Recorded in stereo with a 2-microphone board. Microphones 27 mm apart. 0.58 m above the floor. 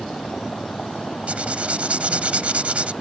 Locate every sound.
0.0 s a vehicle: 40° left (ahead or behind); by 3.0 s 90° left
1.3 s writing: 60° right (ahead or behind)